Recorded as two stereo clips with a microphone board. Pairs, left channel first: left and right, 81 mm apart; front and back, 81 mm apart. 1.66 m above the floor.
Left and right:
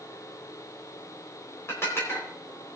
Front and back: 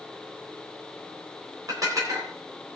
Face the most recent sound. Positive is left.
turn(degrees=145)